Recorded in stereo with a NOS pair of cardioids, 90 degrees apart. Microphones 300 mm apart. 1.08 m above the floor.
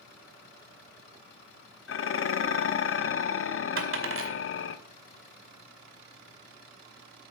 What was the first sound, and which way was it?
Dishes clattering, 45° left.